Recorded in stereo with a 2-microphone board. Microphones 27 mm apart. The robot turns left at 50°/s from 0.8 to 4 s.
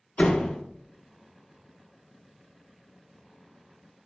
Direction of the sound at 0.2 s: 60° left (ahead or behind).